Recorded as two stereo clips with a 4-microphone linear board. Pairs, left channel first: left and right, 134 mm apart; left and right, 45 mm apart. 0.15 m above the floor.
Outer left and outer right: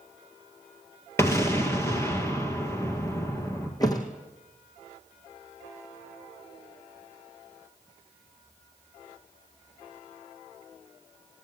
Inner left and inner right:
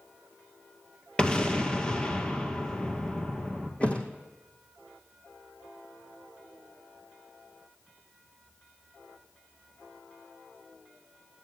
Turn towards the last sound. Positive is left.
turn(degrees=30)  # may be behind; listen again after turning